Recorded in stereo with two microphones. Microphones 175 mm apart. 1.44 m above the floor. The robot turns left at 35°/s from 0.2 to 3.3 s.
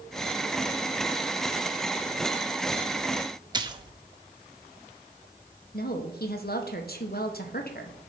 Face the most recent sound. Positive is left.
turn(degrees=60)  # may be behind; listen again after turning